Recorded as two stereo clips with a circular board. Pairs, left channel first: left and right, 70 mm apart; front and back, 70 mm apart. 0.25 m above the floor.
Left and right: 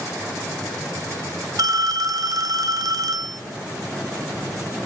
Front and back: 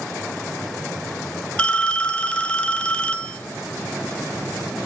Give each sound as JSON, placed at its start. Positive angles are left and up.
{"t": 1.6, "sound": "a phone ringing", "azimuth_deg": -75, "distance_m": 1.1}